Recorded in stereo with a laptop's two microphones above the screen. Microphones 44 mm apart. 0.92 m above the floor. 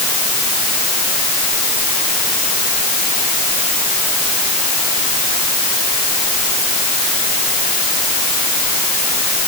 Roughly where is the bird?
I don't hear a bird.